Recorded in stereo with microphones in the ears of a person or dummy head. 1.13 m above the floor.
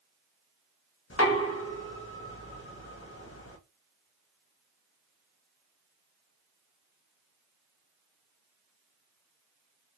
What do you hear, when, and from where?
1.1 s knocking: 70° left (ahead or behind), 0.9 m